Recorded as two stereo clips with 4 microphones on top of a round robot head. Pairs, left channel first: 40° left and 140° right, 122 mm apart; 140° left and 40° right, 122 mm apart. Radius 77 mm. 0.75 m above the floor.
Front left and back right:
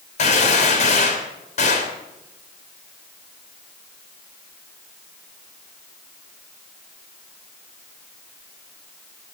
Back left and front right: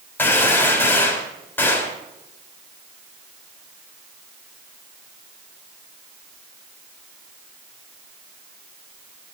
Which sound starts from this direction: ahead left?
A gunshot, at 0.2 s.